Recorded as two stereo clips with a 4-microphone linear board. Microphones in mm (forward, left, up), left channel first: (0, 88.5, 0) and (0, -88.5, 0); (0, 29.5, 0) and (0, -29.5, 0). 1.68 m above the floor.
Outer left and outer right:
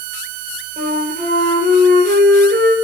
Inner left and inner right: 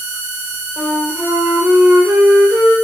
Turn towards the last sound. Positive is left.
turn(degrees=-55)  # may be behind; listen again after turning